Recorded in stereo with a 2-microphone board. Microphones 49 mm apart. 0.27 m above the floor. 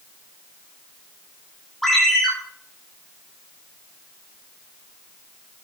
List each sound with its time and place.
1.8 s a ringtone: 5° left (ahead or behind), 8.5 m